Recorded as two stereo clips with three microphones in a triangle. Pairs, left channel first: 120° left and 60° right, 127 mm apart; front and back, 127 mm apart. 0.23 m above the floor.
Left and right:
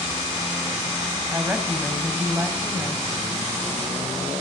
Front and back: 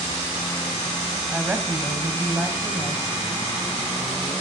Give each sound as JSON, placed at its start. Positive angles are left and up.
{"t": 1.3, "sound": "a woman speaking", "azimuth_deg": -110, "distance_m": 1.6}